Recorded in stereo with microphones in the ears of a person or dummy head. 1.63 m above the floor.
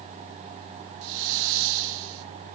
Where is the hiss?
60° right (ahead or behind), 0.6 m.